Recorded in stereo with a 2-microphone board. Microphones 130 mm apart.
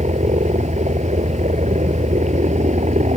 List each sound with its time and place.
0.0 s a helicopter: 70° right (ahead or behind)